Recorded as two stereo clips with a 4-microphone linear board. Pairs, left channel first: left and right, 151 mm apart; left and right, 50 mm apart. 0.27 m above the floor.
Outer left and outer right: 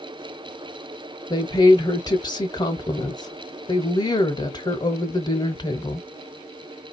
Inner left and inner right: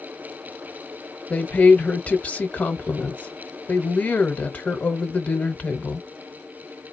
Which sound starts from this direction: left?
A woman speaking, at 1.3 s.